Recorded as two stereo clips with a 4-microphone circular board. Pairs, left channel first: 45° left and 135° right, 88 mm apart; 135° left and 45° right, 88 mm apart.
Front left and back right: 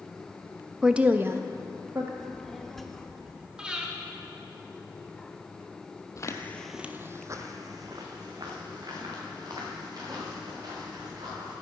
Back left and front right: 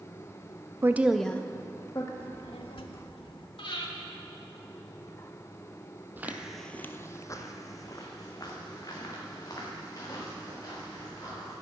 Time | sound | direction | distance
0.8 | a woman speaking | 60° right | 0.6 m
2.2 | a child speaking | 130° left | 1.1 m
3.6 | breathing | 145° left | 1.7 m
6.2 | footsteps | 15° left | 1.0 m